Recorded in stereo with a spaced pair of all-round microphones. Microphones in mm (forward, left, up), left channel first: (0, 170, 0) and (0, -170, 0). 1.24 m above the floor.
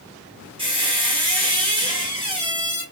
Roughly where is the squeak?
Centre.